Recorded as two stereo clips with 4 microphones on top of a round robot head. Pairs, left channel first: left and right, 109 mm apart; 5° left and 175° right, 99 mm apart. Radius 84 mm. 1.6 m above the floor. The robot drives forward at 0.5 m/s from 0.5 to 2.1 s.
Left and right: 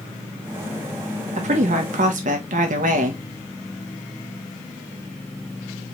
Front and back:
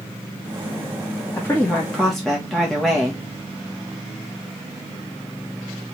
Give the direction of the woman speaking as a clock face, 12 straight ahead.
2 o'clock.